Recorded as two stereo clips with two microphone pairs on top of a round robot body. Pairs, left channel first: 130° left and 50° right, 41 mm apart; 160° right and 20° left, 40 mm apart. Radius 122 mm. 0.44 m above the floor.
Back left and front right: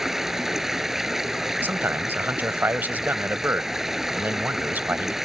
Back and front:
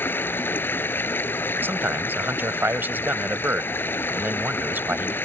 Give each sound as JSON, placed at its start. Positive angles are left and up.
{"t": 0.0, "sound": "running water", "azimuth_deg": -130}
{"t": 1.6, "sound": "a man speaking", "azimuth_deg": -10}